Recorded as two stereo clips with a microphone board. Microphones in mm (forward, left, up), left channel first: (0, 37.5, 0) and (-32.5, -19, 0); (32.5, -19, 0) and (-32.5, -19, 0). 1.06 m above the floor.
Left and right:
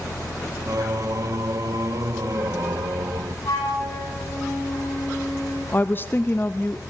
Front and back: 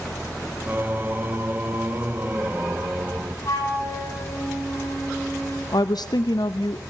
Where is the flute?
35° left, 8.5 m.